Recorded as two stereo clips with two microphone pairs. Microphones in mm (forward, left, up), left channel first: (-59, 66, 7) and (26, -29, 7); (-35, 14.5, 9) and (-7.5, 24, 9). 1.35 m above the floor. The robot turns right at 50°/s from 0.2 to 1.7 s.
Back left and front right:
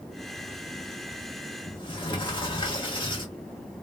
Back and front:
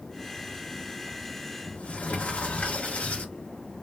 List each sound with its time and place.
1.7 s a sliding door: 175° left, 1.2 m